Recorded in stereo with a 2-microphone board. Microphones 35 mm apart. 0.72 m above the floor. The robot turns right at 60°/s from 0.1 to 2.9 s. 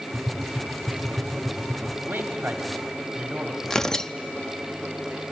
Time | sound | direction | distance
0.1 | tapping | 20° right (ahead or behind) | 2.5 m
2.1 | a man speaking | 65° right (ahead or behind) | 1.6 m
3.6 | tearing paper | 15° left (ahead or behind) | 0.6 m